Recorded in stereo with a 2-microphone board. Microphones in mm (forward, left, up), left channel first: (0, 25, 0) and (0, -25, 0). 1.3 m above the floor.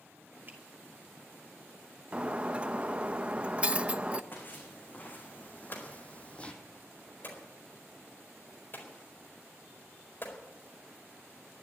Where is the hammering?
45° left (ahead or behind), 4.5 m.